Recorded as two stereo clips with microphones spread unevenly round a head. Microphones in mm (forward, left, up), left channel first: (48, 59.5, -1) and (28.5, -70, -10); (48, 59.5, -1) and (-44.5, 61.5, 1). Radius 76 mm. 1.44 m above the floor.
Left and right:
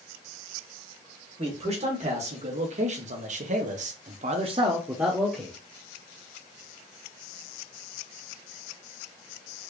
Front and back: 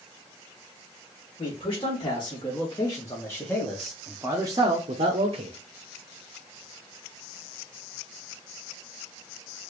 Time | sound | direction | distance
1.4 | a man speaking | 60° right | 1.8 m